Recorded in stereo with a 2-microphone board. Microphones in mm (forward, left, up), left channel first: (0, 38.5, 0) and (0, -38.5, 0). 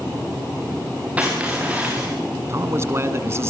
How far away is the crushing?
About 6 m.